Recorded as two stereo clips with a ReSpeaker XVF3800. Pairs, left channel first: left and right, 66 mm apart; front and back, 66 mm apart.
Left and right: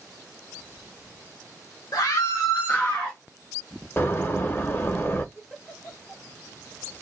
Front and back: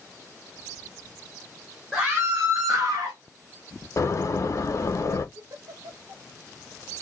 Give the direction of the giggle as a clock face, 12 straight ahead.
6 o'clock.